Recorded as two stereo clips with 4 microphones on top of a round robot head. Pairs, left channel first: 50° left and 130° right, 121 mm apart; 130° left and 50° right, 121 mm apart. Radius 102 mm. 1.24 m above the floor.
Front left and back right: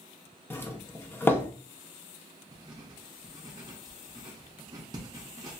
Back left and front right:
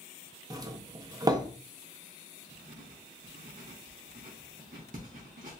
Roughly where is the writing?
Right.